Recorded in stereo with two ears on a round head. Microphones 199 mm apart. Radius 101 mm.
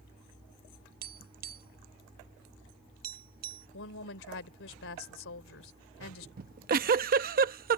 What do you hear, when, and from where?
1.0 s tapping: 45° right (ahead or behind)
3.7 s a woman speaking: 70° left (ahead or behind)
6.4 s a giggle: 45° right (ahead or behind)